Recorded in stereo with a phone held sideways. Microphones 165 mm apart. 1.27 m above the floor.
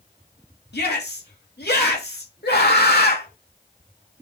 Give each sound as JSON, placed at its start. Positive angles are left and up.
{"t": 0.7, "sound": "a shout", "side_deg": 80, "distance_m": 2.5}
{"t": 2.4, "sound": "a scream", "side_deg": 80, "distance_m": 2.5}